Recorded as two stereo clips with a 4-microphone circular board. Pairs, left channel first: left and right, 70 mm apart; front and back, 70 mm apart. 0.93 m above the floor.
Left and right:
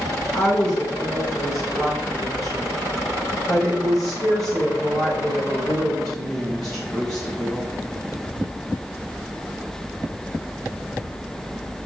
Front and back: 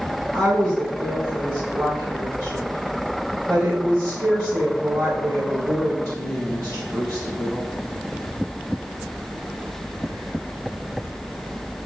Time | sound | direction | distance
0.3 | a woman speaking | 130° left | 3.5 m